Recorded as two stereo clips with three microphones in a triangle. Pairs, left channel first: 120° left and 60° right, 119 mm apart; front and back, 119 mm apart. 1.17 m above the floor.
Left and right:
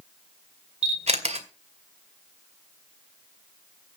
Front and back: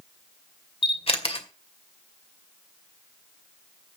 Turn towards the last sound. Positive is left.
turn(degrees=-35)